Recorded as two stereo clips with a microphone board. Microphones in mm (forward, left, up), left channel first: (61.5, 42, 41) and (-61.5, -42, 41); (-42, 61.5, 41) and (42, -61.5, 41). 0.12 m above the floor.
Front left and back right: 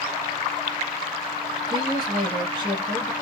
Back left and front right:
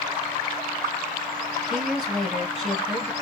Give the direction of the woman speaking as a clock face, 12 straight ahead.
5 o'clock.